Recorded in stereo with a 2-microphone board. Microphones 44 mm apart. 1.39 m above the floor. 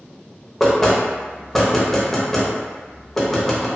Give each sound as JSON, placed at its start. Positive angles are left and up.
{"t": 0.6, "sound": "knocking", "side_deg": 10, "distance_m": 0.7}